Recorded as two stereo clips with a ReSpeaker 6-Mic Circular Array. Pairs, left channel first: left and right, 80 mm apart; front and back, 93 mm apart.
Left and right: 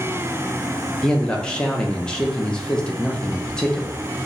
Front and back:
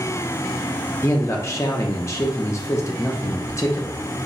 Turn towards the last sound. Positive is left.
turn(degrees=20)